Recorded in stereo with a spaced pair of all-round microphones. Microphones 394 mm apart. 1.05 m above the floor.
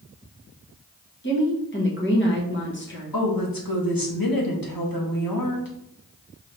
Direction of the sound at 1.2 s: 30° left (ahead or behind).